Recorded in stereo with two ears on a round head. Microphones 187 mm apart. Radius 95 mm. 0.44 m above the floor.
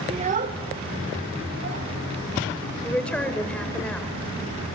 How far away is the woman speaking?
About 1.2 m.